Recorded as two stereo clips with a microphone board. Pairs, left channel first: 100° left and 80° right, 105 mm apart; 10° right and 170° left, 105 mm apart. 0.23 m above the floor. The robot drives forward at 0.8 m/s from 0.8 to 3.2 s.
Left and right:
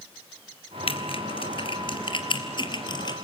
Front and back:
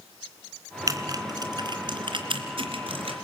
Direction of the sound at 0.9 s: 115° left.